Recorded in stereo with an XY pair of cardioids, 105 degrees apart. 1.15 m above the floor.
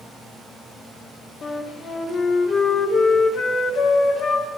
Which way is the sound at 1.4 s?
55° left.